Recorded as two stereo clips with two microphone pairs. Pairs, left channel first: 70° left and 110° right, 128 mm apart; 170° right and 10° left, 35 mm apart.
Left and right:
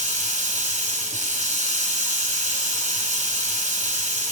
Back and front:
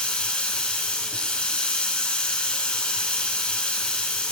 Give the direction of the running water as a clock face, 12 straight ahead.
4 o'clock.